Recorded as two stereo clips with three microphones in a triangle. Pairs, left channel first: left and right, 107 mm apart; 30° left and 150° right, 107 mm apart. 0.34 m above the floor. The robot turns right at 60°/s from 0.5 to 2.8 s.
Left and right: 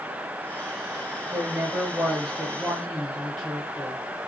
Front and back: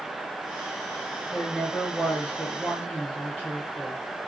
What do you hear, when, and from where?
1.3 s a woman speaking: 80° right, 0.8 m; by 4.0 s 10° left, 0.8 m